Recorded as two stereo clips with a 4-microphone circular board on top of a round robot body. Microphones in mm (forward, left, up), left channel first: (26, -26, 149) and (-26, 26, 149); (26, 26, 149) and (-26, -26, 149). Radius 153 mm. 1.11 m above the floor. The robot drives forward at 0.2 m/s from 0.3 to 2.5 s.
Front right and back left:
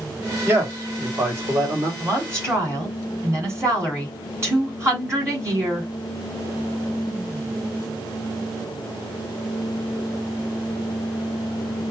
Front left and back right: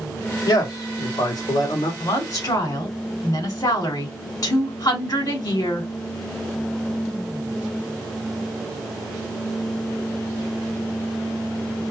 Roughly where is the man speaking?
Left.